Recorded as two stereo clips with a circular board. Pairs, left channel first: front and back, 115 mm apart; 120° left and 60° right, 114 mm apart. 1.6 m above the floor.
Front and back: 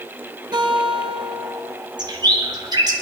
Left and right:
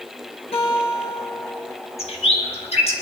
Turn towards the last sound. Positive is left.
turn(degrees=130)